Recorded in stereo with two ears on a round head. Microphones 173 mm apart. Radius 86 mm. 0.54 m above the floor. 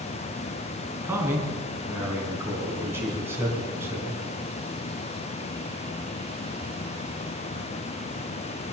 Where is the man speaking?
15° right (ahead or behind), 4.5 m.